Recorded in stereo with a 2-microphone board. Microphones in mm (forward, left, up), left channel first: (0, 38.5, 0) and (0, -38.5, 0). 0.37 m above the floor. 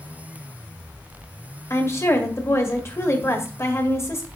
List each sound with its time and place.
1.7 s a woman speaking: 40° left (ahead or behind), 1.7 m